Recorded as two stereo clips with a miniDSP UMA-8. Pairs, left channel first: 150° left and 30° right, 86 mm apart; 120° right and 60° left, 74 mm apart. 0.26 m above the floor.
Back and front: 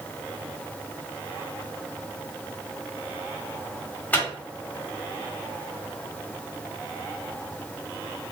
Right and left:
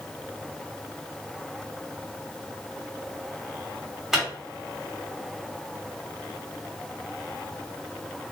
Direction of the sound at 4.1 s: 135° left.